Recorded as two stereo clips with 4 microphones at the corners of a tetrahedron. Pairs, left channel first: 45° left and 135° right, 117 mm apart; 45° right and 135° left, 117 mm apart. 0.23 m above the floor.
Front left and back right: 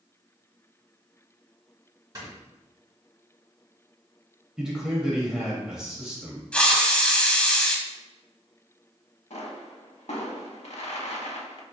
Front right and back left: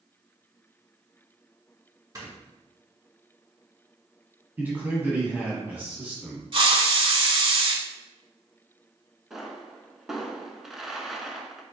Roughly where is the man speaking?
Behind left.